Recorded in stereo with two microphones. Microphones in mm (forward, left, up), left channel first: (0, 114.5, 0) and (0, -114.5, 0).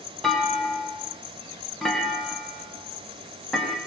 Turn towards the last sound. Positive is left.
turn(degrees=0)  # may be behind; listen again after turning